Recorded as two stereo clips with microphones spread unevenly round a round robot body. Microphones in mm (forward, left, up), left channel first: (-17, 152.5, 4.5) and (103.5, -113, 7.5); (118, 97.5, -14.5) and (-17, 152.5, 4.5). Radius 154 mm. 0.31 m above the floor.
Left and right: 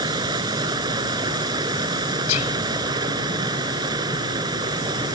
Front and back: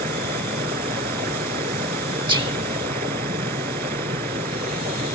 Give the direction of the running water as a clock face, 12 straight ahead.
5 o'clock.